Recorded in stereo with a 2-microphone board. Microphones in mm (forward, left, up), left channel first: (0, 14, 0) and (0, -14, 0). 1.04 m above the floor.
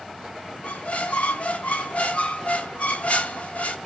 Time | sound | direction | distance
0.6 | a squeak | 55° left (ahead or behind) | 0.6 m